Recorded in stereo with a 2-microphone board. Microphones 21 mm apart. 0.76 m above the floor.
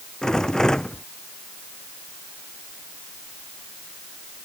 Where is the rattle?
30° left (ahead or behind).